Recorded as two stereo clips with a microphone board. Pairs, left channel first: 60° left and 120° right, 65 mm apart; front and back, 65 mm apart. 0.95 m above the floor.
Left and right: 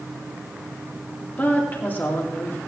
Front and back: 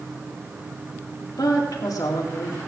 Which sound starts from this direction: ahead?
A woman speaking, at 1.4 s.